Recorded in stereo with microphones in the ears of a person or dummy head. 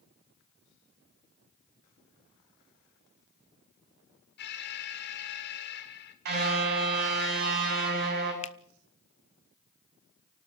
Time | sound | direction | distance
4.4 | an alarm | 50° left (ahead or behind) | 2.5 m
6.2 | a car horn | 55° right (ahead or behind) | 7.5 m
8.4 | a finger snap | 35° left (ahead or behind) | 0.7 m